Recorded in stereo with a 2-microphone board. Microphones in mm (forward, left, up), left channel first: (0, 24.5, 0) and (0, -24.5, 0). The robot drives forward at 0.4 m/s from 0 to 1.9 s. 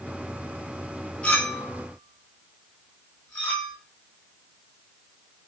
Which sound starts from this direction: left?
A clink, at 1.2 s.